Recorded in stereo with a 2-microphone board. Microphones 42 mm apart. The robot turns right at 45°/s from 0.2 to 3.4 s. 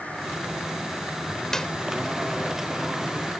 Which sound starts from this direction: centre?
A clap, at 1.5 s.